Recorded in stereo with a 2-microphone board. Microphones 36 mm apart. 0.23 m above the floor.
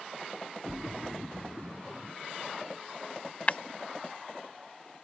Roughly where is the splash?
Centre.